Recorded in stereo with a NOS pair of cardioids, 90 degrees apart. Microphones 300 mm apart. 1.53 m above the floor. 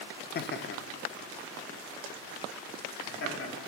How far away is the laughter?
About 0.6 m.